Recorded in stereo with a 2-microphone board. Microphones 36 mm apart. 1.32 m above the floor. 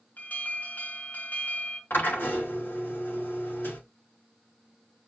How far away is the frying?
No frying in this recording.